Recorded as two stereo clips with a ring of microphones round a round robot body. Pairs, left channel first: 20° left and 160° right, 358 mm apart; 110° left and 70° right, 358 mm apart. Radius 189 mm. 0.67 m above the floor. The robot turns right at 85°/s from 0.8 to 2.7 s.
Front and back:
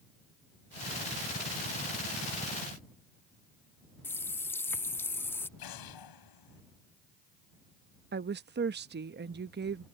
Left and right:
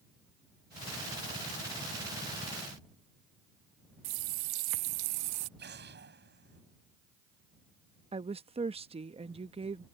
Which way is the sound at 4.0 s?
60° right.